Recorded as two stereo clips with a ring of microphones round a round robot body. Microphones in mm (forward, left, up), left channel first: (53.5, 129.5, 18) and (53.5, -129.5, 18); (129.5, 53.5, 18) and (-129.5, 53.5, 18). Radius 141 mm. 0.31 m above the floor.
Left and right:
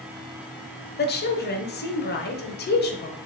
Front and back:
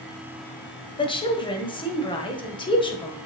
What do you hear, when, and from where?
1.0 s a woman speaking: 65° left, 1.4 m